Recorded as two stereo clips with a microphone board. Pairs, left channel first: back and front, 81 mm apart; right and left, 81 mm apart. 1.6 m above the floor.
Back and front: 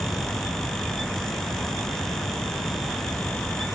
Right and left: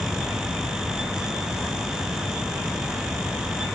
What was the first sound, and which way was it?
Only background noise.